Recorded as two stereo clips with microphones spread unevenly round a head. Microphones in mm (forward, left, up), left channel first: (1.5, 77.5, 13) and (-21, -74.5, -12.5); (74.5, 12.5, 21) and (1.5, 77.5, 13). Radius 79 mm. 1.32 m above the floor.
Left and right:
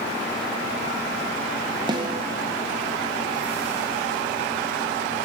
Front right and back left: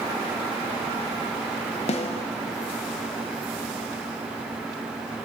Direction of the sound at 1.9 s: 35° right.